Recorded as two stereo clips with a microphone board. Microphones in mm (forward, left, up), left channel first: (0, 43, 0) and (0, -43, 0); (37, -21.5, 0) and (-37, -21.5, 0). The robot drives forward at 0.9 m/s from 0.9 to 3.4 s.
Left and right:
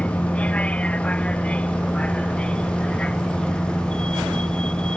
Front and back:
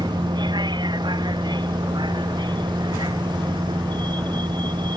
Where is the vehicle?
165° left; by 5.0 s 170° left.